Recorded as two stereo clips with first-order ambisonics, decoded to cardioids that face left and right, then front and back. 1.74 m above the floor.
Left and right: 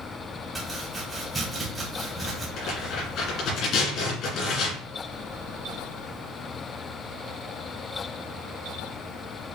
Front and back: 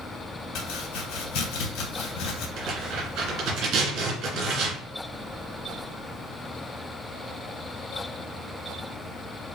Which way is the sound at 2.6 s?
135° left.